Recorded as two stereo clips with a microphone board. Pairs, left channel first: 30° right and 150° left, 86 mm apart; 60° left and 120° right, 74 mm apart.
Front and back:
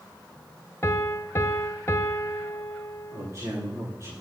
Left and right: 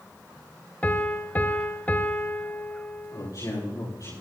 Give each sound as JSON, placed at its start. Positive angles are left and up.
{"t": 0.8, "sound": "a piano", "azimuth_deg": 10, "distance_m": 0.8}
{"t": 3.1, "sound": "a man speaking", "azimuth_deg": 90, "distance_m": 9.0}